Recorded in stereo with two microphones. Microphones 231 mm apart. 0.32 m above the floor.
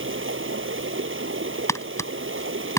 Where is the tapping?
15° left (ahead or behind).